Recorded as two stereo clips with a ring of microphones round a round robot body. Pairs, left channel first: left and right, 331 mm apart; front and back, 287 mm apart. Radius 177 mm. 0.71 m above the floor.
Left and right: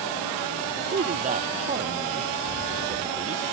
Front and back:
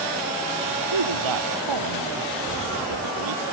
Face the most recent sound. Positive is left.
turn(degrees=-160)